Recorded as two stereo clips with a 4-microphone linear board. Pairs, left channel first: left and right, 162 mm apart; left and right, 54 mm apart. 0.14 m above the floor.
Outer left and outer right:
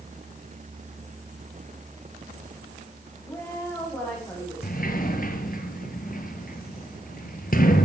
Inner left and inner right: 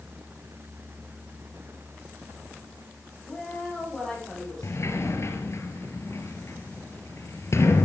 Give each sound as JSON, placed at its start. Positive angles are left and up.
{"t": 3.2, "sound": "a woman speaking", "side_deg": 15, "distance_m": 10.0}
{"t": 4.6, "sound": "a sliding door", "side_deg": 60, "distance_m": 2.0}